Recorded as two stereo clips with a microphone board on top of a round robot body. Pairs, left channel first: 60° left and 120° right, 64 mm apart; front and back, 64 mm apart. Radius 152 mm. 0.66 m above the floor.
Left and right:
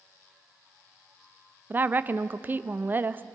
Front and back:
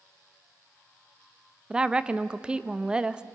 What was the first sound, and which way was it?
A woman speaking, 120° right.